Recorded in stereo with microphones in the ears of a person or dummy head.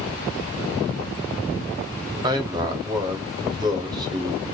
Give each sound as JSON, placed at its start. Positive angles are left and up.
{"t": 2.2, "sound": "a man speaking", "side_deg": -20, "distance_m": 0.7}